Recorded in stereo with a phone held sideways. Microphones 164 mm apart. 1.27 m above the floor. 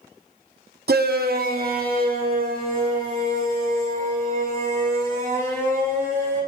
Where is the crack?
No crack in this recording.